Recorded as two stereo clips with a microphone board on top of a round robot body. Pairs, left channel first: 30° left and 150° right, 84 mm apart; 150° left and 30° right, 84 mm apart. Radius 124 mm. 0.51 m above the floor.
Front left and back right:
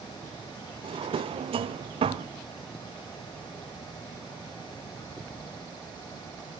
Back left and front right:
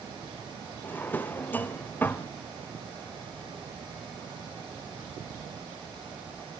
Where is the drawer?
140° right, 0.7 m.